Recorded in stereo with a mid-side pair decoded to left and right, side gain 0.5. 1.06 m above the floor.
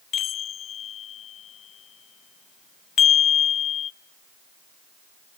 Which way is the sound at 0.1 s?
55° left.